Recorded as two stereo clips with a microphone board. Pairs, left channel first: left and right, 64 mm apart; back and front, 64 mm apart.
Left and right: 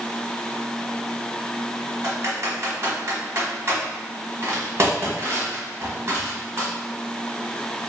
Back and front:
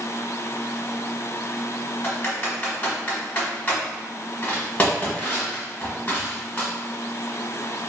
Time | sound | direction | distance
2.0 | typing on a keyboard | 125° right | 1.2 m